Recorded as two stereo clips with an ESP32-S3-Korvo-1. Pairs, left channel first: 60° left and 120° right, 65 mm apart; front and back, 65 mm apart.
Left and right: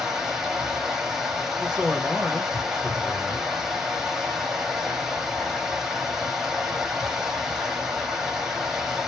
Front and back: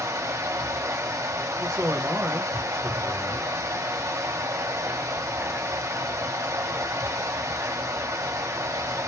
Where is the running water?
160° left, 1.7 m.